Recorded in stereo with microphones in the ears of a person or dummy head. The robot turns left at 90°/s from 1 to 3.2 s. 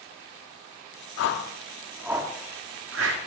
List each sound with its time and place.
1.2 s a whoosh: 65° left (ahead or behind), 2 m; by 3.2 s 65° right (ahead or behind), 2 m